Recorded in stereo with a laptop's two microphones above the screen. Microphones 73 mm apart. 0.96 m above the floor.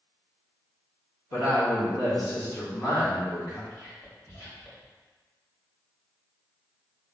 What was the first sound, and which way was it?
A woman speaking, 50° left (ahead or behind).